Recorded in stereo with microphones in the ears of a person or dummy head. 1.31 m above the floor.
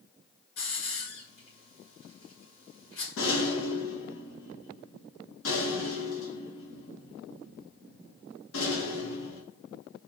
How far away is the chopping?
I don't hear chopping.